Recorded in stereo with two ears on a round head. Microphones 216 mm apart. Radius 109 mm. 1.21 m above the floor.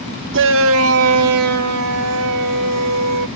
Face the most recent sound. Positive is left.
turn(degrees=-75)  # may be behind; listen again after turning